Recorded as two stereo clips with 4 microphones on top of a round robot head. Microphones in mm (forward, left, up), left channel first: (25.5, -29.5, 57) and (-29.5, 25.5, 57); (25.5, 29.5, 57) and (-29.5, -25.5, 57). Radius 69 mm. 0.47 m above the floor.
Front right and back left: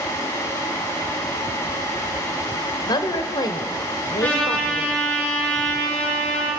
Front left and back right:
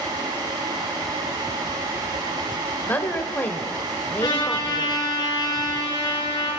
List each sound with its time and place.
2.9 s a woman speaking: 20° right, 2 m
4.2 s a trumpet: 25° left, 7.5 m